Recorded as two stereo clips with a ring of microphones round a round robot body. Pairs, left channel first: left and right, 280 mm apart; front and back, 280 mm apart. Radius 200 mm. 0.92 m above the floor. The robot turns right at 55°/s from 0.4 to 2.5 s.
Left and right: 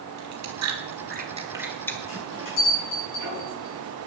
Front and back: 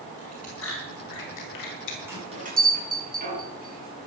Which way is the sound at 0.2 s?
75° right.